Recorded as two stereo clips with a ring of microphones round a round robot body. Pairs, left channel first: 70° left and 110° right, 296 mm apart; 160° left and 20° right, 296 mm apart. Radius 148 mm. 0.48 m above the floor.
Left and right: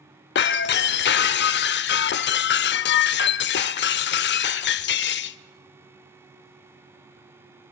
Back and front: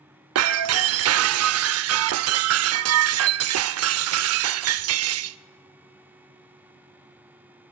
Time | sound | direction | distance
0.3 | breaking glass | 15° left | 0.6 m